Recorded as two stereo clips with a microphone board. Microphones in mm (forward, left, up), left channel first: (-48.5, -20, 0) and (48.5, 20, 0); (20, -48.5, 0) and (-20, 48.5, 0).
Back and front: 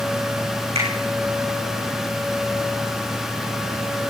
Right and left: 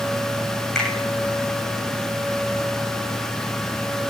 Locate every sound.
0.8 s a finger snap: 15° left, 10 m